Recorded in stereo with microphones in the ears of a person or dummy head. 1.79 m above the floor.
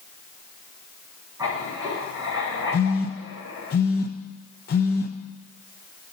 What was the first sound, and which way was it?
Writing, 20° right (ahead or behind).